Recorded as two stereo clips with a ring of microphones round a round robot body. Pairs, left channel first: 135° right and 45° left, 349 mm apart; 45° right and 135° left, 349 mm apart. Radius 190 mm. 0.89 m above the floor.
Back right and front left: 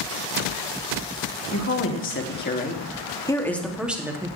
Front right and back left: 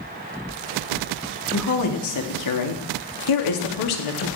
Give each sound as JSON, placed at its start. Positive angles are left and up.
{"t": 1.5, "sound": "a woman speaking", "azimuth_deg": -90, "distance_m": 2.5}